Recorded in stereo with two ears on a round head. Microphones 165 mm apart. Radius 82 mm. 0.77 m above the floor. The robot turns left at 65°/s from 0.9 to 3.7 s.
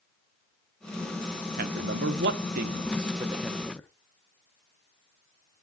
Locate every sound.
1.6 s a man speaking: 45° right (ahead or behind), 1.2 m; by 3.9 s 10° left (ahead or behind), 1.2 m